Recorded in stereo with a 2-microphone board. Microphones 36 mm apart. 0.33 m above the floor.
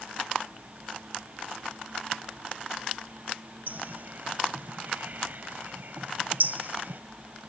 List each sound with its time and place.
3.7 s a bird: 55° right (ahead or behind)